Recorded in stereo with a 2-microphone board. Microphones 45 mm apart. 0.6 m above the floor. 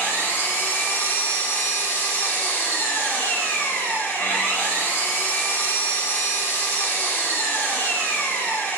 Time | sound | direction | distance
0.0 | an engine running | 70° left (ahead or behind) | 1.9 m